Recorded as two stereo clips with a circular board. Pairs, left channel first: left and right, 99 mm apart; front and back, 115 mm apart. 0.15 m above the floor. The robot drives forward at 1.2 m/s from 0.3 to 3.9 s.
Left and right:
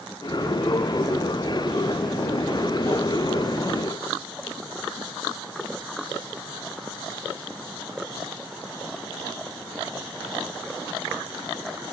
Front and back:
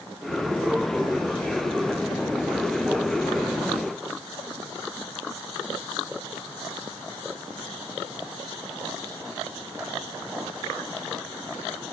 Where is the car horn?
No car horn in this recording.